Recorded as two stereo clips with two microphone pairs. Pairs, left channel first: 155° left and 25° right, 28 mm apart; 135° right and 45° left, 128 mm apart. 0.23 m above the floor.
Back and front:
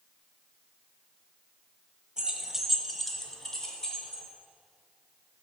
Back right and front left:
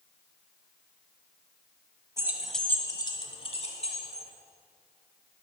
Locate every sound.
2.2 s keys jangling: 5° left, 0.9 m; by 4.2 s 140° right, 2 m